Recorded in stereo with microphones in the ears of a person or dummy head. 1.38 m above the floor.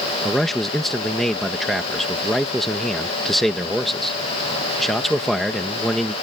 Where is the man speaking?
Centre (ahead or behind).